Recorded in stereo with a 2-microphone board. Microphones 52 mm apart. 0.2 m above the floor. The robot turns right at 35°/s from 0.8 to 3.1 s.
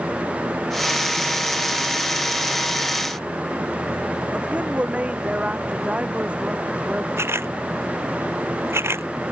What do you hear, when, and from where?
4.3 s a woman speaking: 25° right (ahead or behind)
7.2 s a camera shutter: 60° right (ahead or behind)